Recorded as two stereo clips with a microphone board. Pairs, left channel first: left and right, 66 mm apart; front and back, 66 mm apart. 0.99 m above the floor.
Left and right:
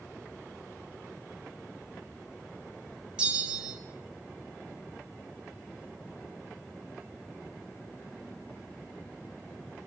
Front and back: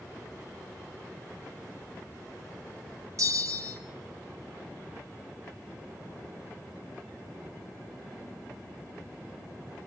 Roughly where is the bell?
Behind.